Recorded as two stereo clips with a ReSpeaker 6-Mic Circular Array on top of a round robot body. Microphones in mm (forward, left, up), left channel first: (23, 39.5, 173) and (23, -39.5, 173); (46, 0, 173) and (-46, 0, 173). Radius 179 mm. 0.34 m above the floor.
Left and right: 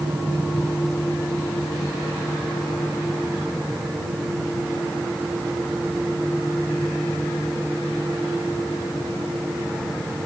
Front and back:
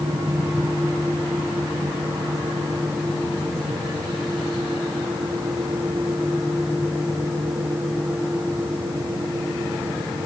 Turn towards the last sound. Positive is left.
No sound to turn to.